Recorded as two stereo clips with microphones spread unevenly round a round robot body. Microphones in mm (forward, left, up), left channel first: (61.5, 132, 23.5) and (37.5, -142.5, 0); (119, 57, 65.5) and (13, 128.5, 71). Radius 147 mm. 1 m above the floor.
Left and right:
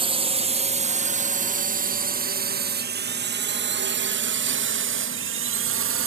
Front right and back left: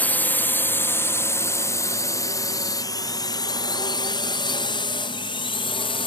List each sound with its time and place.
0.0 s a drone: 90° right; by 6.1 s 75° right